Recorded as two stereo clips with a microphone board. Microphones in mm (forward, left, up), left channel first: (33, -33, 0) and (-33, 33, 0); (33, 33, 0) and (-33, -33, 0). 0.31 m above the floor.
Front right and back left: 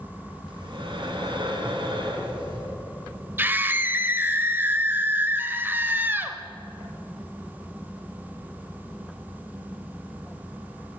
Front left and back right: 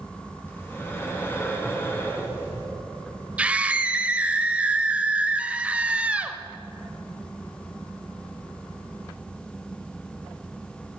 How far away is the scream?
About 1.1 m.